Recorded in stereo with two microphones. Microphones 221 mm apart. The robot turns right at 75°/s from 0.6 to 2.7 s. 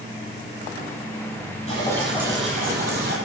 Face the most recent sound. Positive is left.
turn(degrees=-135)